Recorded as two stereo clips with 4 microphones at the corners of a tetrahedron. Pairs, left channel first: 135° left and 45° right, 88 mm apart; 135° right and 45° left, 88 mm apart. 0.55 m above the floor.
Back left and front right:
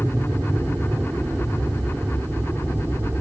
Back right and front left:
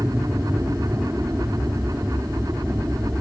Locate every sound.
0.0 s an aircraft: straight ahead